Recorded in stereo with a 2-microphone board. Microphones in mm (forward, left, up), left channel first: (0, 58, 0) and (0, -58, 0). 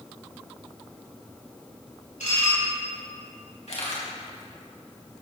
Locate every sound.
2.2 s dishes clattering: 85° left, 5.5 m
3.7 s a camera shutter: 65° left (ahead or behind), 4 m